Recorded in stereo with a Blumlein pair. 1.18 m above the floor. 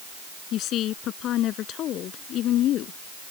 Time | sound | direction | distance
0.5 | a woman speaking | 35° left | ?